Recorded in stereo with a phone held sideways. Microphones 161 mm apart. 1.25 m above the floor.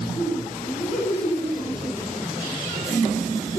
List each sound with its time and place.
0.1 s laughter: 25° left (ahead or behind), 5.5 m; by 3.6 s 5° left (ahead or behind), 3 m